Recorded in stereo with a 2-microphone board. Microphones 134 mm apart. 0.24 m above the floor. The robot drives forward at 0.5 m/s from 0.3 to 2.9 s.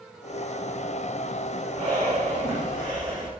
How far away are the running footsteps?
I don't hear running footsteps.